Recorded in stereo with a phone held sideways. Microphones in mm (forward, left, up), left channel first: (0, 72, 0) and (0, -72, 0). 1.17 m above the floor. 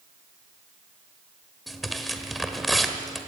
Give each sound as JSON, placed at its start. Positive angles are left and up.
{"t": 1.7, "sound": "tearing paper", "side_deg": 0, "distance_m": 1.7}